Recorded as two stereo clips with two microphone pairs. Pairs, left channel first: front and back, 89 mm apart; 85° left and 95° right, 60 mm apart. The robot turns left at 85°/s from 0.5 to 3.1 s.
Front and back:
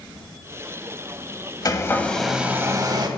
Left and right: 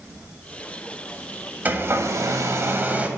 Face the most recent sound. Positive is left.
turn(degrees=-160)